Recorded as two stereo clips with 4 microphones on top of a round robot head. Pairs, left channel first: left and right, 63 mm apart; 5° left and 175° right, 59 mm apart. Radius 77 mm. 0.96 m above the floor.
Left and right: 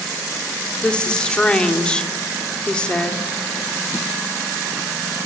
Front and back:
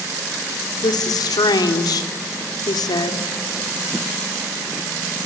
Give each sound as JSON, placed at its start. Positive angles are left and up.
{"t": 0.8, "sound": "a woman speaking", "azimuth_deg": 15, "distance_m": 3.0}